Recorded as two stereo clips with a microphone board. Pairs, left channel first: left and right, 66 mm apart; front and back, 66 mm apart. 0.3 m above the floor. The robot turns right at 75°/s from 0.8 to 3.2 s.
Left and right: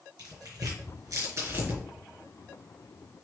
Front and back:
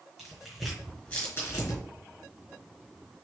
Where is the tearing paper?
95° right, 4.5 m; by 1.8 s 15° right, 4.5 m.